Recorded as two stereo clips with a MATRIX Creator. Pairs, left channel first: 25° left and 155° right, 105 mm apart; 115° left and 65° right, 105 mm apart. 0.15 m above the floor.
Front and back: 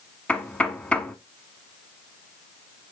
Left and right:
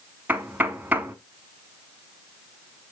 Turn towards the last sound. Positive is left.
turn(degrees=-35)